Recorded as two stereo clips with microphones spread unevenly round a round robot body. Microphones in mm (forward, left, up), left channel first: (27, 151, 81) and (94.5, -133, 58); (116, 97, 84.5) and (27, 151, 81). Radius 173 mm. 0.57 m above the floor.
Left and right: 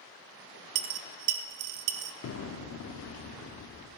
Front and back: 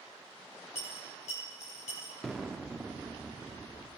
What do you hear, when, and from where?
0.8 s a dropped coin: 80° right, 0.6 m
2.2 s an explosion: 60° left, 0.6 m